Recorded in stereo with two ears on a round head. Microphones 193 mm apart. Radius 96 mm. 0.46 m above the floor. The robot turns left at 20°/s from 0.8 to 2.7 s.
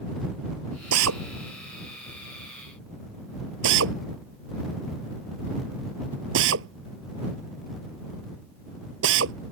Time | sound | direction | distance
0.9 | a drill | 80° right | ?